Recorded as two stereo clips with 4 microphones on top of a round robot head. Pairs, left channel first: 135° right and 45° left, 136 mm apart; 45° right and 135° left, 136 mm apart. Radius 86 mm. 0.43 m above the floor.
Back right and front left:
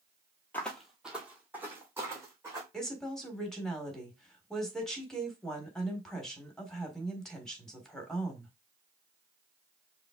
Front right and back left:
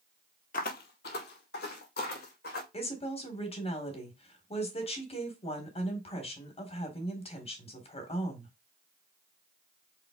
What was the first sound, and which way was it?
Footsteps, 60° right.